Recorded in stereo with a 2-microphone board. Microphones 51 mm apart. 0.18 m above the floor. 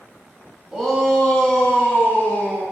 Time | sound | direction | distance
0.7 | a shout | 5° right (ahead or behind) | 1.2 m